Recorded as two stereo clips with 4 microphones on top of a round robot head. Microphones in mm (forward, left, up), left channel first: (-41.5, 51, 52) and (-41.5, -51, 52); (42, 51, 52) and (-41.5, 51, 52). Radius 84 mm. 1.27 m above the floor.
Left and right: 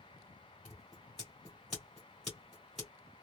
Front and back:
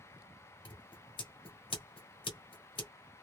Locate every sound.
0.7 s scissors: 5° left, 1.5 m